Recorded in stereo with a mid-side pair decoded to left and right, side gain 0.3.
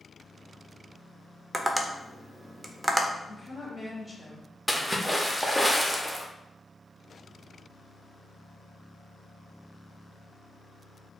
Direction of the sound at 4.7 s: Straight ahead.